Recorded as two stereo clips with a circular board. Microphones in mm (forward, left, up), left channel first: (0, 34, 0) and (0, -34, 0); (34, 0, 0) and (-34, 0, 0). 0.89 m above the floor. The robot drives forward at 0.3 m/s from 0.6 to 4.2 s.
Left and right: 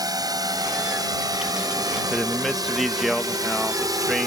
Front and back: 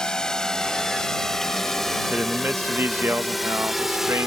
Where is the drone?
80° right; by 4.3 s 95° right.